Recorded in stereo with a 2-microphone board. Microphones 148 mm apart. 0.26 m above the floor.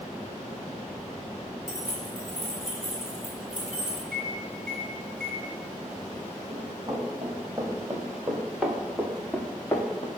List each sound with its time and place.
1.7 s keys jangling: 30° left (ahead or behind), 3 m; by 4.0 s 50° left (ahead or behind), 2 m
4.1 s a microwave: 5° left (ahead or behind), 2.5 m
6.5 s running footsteps: 25° right (ahead or behind), 3 m; by 10.1 s 30° left (ahead or behind), 1.3 m